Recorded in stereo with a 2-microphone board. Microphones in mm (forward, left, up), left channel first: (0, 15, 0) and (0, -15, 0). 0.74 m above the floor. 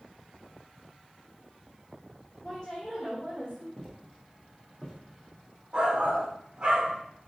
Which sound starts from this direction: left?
A woman speaking, at 2.4 s.